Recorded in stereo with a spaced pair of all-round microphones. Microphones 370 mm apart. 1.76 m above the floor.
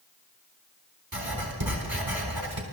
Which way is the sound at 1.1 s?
70° right (ahead or behind).